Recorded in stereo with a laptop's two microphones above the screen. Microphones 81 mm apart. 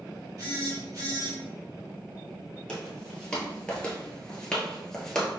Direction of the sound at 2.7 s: 10° left (ahead or behind).